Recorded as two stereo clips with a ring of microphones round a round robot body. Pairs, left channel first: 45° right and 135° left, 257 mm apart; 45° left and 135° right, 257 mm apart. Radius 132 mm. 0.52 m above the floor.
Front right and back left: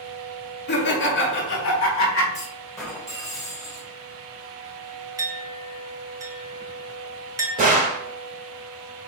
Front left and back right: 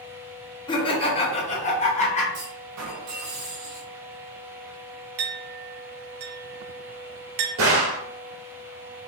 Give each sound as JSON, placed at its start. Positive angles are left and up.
{"t": 0.7, "sound": "laughter", "azimuth_deg": -20, "distance_m": 1.2}
{"t": 2.3, "sound": "a clunk", "azimuth_deg": -125, "distance_m": 2.0}
{"t": 5.2, "sound": "a clink", "azimuth_deg": -145, "distance_m": 1.0}
{"t": 7.6, "sound": "a gunshot", "azimuth_deg": -170, "distance_m": 1.6}